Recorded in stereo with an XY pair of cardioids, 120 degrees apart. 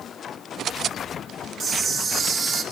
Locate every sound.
1.6 s a camera shutter: 50° right, 3 m